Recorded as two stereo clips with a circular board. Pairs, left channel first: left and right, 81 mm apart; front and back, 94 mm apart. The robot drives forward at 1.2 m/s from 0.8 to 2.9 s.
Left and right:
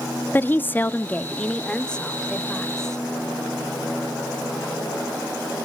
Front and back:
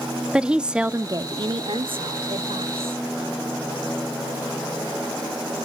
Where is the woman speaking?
115° left, 0.6 m; by 3.0 s 175° left, 2.5 m.